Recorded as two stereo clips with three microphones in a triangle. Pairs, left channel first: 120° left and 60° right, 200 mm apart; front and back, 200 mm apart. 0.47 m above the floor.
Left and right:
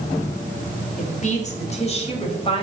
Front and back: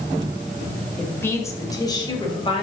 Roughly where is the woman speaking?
Left.